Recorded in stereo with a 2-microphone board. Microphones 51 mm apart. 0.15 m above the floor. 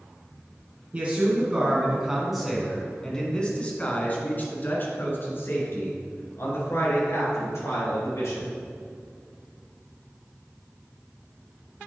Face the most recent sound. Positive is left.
turn(degrees=65)  # may be behind; listen again after turning